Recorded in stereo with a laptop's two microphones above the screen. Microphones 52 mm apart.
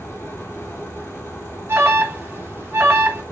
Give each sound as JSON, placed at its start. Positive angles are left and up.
{"t": 0.0, "sound": "a fan", "side_deg": 80, "distance_m": 4.5}
{"t": 1.7, "sound": "an alarm", "side_deg": -45, "distance_m": 1.5}